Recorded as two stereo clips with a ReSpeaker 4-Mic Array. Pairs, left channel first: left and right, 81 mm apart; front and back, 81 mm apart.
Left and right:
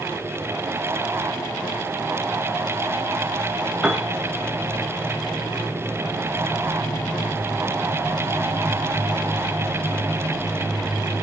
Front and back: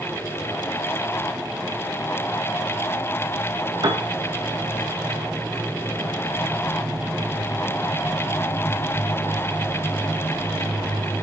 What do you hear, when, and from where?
3.8 s a piano: 170° right, 2.5 m